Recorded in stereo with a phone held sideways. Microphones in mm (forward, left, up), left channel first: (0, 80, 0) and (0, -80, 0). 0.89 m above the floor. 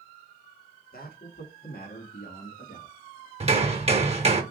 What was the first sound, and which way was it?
A man speaking, 65° left (ahead or behind).